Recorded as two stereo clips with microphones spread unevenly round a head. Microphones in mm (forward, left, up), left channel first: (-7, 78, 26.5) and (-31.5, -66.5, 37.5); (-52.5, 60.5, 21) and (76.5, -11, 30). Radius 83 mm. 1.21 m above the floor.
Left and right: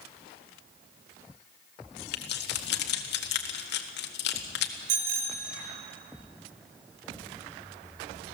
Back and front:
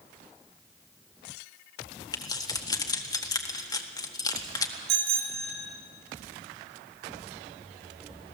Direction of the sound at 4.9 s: 60° right.